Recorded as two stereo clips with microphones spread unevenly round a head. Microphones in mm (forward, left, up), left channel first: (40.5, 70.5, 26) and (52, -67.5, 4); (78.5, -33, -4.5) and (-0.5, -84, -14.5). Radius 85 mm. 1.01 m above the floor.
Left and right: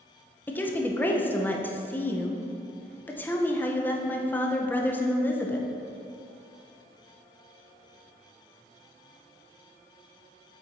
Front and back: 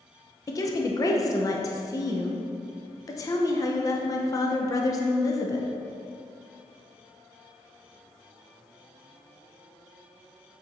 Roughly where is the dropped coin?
I don't hear a dropped coin.